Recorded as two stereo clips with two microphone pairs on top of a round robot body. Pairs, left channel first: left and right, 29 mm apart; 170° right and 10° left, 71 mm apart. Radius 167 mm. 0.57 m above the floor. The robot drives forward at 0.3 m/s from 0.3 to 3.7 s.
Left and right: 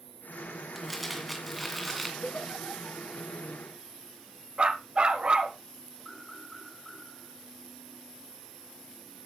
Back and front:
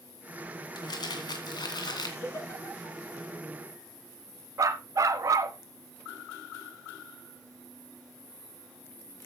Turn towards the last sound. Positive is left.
turn(degrees=-35)